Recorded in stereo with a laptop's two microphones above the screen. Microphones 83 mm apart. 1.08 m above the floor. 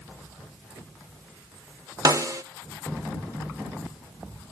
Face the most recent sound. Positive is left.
turn(degrees=-45)  # may be behind; listen again after turning